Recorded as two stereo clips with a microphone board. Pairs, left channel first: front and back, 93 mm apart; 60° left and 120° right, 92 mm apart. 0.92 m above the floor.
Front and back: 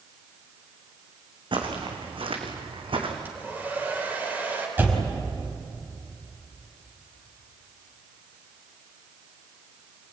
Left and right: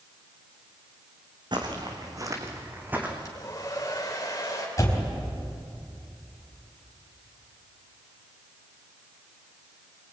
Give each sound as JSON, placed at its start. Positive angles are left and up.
{"t": 1.5, "sound": "footsteps", "azimuth_deg": -155, "distance_m": 4.0}
{"t": 3.2, "sound": "a hair dryer", "azimuth_deg": 115, "distance_m": 4.5}
{"t": 4.8, "sound": "a door slam", "azimuth_deg": 115, "distance_m": 4.0}